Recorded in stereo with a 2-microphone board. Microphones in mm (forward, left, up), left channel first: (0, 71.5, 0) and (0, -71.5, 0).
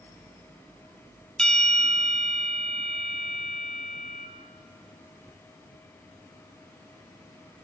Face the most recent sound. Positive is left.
turn(degrees=5)  # may be behind; listen again after turning